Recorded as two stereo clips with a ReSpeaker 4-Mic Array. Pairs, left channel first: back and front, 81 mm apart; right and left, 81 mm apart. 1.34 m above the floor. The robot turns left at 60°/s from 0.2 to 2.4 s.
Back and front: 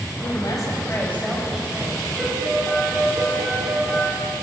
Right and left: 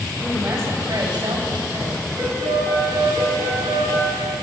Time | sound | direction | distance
0.2 | a woman speaking | 165° left | 6 m
2.2 | a piano | 85° left | 7.5 m